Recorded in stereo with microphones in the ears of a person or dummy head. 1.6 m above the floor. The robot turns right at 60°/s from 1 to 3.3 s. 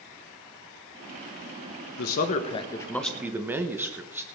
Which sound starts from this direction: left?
A man speaking, at 2.0 s.